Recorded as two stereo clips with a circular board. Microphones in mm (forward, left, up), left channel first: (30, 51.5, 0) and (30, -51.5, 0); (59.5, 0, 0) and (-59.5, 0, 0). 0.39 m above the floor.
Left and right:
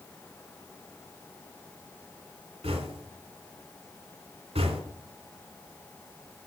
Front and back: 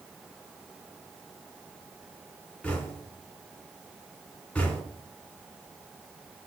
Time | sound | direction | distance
2.6 | knocking | 80° right | 2.5 m